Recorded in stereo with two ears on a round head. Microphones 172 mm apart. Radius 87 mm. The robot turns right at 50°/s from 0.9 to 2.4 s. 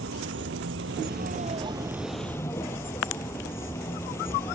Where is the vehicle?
60° right; by 4.5 s 15° left.